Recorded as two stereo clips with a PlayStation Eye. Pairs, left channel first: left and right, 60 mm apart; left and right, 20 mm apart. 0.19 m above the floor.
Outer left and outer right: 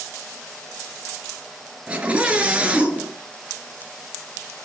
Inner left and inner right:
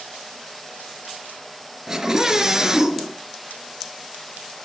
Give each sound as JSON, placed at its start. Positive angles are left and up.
{"t": 1.9, "sound": "a scream", "side_deg": -25, "distance_m": 3.5}